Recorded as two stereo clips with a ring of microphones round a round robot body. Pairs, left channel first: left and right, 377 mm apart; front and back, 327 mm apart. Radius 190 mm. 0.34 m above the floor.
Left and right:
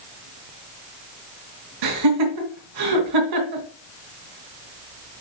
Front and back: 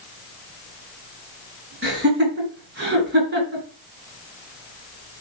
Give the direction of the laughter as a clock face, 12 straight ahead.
4 o'clock.